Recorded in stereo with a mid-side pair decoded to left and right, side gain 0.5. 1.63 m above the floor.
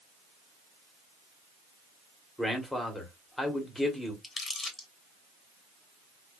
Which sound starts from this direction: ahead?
A man speaking, at 2.4 s.